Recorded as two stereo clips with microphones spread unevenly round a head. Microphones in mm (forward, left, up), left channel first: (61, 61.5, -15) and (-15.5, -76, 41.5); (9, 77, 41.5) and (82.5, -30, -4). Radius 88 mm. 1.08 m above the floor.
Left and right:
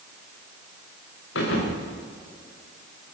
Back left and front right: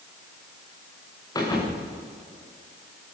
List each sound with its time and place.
1.4 s a thud: 70° left, 7.5 m